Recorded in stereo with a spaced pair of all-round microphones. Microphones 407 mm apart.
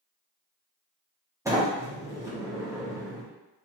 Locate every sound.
1.4 s a sliding door: 5° right (ahead or behind), 1.2 m